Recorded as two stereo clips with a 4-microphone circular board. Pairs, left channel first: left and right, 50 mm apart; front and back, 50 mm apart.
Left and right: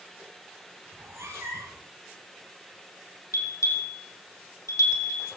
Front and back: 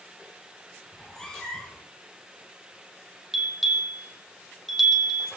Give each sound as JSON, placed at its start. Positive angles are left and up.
{"t": 0.9, "sound": "a cat meowing", "azimuth_deg": -80, "distance_m": 4.0}
{"t": 3.3, "sound": "a bell", "azimuth_deg": 95, "distance_m": 5.0}